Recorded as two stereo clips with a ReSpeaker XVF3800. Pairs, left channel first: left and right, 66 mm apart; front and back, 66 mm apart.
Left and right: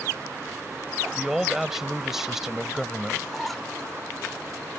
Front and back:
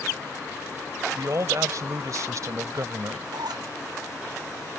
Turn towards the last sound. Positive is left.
turn(degrees=180)